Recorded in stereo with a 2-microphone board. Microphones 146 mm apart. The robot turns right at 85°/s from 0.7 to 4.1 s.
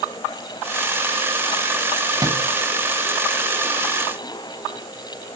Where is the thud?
25° right (ahead or behind), 2 m; by 2.4 s 45° right (ahead or behind), 2 m.